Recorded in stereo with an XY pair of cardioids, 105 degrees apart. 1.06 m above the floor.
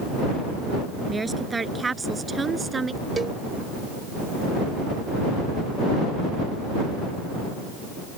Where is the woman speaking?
25° right; by 3.0 s 30° right.